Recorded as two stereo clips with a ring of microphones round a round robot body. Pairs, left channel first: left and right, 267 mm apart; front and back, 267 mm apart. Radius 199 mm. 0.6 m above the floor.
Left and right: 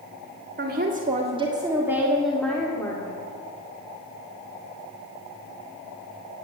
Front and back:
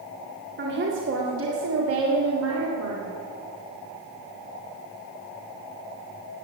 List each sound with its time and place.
0.6 s a woman speaking: 135° right, 2.0 m; by 3.2 s 165° left, 2.5 m